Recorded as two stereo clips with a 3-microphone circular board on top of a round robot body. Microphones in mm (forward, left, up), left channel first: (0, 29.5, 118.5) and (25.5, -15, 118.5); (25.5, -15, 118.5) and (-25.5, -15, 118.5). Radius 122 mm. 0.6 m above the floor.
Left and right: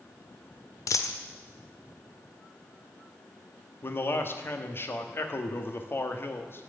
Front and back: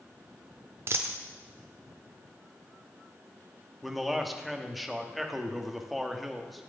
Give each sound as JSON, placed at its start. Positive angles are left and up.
{"t": 0.9, "sound": "a dropped coin", "azimuth_deg": 140, "distance_m": 0.6}
{"t": 3.8, "sound": "a man speaking", "azimuth_deg": 90, "distance_m": 1.4}